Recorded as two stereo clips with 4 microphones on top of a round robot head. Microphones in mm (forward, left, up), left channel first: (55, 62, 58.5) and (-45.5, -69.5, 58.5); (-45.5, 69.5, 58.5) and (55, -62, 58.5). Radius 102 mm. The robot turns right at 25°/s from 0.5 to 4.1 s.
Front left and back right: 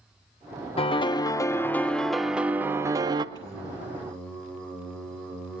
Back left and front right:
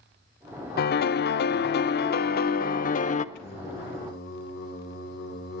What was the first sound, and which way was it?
A piano, 110° left.